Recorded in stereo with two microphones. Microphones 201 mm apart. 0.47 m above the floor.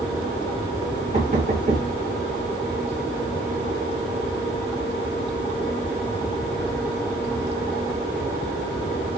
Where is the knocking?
40° right (ahead or behind), 1.1 m.